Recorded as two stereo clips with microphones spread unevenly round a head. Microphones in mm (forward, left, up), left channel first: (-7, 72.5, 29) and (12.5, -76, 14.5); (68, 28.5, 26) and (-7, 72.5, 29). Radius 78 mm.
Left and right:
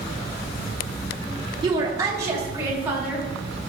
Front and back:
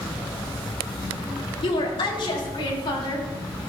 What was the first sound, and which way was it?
A woman speaking, 20° right.